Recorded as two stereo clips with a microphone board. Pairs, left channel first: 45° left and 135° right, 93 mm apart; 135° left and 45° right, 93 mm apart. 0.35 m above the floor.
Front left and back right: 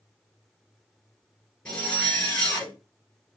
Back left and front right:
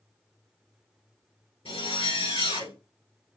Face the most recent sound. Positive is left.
turn(degrees=125)